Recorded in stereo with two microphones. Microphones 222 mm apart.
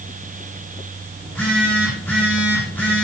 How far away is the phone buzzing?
About 10 m.